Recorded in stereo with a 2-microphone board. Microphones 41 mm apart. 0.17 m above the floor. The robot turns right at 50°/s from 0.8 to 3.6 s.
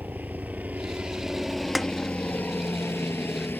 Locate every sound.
0.0 s a helicopter: 45° right (ahead or behind); by 3.6 s 50° left (ahead or behind)
1.8 s a snare drum: 5° right (ahead or behind); by 1.9 s 5° left (ahead or behind)